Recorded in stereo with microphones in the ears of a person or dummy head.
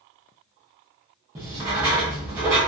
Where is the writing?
15° right (ahead or behind), 0.7 m.